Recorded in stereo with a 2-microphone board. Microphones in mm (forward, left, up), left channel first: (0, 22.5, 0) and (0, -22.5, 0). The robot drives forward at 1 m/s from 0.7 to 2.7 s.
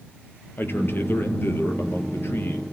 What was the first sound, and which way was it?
A man speaking, 50° left (ahead or behind).